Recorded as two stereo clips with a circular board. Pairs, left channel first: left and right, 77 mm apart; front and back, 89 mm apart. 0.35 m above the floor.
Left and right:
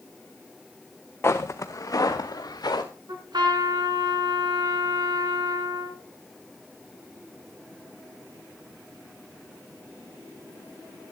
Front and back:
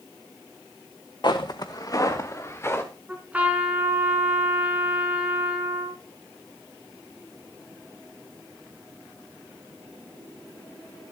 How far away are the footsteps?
About 1.5 m.